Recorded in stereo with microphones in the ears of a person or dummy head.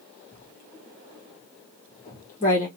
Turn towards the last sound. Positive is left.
turn(degrees=35)  # may be behind; listen again after turning